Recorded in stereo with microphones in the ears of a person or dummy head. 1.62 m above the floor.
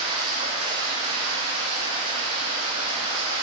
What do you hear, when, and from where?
0.0 s running water: 35° right (ahead or behind), 3.5 m